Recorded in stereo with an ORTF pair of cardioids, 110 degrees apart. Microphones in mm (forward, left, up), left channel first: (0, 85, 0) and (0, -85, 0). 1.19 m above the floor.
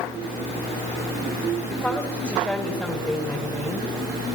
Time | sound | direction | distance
1.7 | a woman speaking | straight ahead | 4 m